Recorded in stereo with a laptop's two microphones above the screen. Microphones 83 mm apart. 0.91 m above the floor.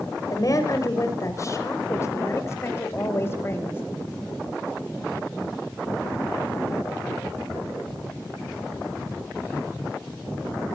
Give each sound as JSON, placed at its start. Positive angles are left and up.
{"t": 0.3, "sound": "a woman speaking", "side_deg": 45, "distance_m": 4.0}